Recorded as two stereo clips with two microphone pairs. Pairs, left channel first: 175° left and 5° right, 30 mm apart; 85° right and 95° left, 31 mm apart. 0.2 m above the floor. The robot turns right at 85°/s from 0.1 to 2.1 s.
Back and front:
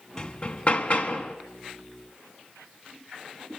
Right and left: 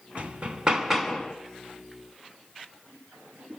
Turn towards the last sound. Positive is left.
turn(degrees=-80)